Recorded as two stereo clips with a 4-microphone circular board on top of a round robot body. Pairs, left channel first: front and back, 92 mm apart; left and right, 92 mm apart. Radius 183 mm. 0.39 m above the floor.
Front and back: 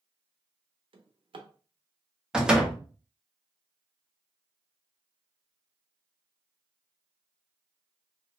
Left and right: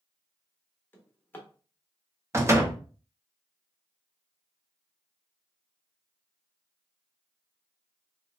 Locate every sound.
0.9 s a drawer: 160° left, 0.7 m
2.3 s a door slam: 105° right, 1.0 m